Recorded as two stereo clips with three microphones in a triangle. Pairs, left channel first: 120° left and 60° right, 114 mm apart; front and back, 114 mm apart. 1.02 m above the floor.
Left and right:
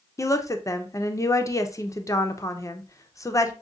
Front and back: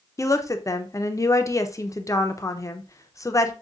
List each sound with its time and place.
0.2 s a woman speaking: 60° left, 0.5 m